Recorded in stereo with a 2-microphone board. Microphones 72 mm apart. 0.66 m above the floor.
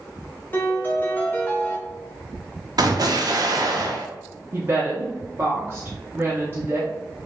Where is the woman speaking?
30° right (ahead or behind), 0.7 m.